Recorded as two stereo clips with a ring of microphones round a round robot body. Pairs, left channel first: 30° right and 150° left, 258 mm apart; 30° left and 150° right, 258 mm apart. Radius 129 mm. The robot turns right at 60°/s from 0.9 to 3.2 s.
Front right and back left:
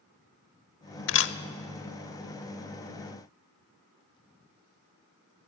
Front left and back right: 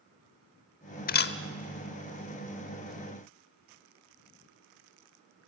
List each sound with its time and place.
1.1 s a camera shutter: 15° right, 0.7 m; by 1.4 s straight ahead, 0.7 m